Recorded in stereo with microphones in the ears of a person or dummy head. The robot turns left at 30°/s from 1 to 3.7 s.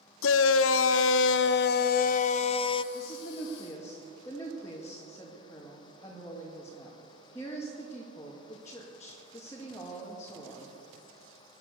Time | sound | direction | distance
0.2 | a shout | 85° left | 0.6 m
2.9 | a woman speaking | 40° left (ahead or behind) | 1.9 m